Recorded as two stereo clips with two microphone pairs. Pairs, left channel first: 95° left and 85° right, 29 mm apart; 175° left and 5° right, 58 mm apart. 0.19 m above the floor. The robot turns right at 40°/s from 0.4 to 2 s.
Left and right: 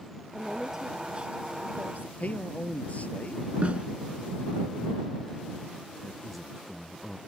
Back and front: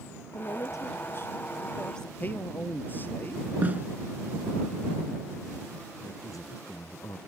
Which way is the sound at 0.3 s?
170° right.